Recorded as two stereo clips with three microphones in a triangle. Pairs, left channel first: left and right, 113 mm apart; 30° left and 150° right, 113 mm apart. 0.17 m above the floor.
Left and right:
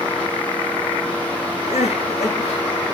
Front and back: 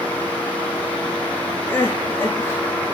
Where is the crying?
100° left, 9.5 m.